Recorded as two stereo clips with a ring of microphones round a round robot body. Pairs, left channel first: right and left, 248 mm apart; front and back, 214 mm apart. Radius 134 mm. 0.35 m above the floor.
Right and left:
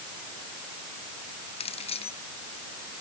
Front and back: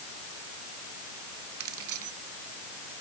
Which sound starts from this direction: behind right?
Keys jangling, at 1.6 s.